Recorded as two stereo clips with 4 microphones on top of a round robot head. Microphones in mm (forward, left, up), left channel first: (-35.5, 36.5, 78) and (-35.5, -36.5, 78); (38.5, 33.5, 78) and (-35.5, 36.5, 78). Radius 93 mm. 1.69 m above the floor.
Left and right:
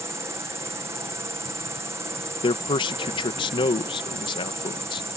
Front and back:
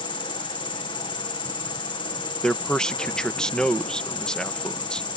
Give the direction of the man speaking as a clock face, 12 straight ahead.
9 o'clock.